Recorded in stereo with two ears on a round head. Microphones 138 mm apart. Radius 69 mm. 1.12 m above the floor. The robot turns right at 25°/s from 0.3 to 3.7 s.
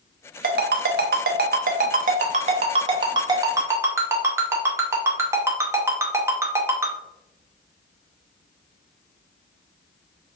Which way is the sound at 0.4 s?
70° right (ahead or behind).